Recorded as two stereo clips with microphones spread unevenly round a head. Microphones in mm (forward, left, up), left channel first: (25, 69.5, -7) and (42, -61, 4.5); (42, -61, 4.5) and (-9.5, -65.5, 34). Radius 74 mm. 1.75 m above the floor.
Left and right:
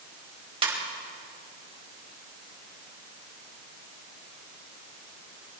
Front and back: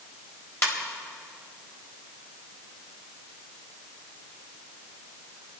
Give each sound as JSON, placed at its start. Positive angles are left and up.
{"t": 0.6, "sound": "a ringtone", "azimuth_deg": -40, "distance_m": 4.5}